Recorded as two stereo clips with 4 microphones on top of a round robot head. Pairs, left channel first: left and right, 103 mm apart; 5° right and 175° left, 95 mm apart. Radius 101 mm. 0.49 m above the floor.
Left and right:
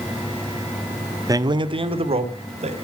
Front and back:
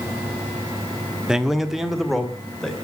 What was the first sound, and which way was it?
A man speaking, 105° right.